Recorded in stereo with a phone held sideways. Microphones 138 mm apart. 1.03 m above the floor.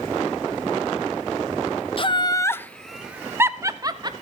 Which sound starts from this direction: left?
Laughter, at 2.0 s.